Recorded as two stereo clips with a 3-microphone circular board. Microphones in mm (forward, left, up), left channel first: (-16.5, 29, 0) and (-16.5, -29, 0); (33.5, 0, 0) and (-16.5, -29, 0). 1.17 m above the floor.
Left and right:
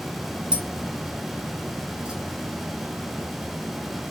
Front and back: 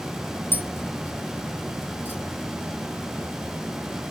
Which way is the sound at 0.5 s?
20° right.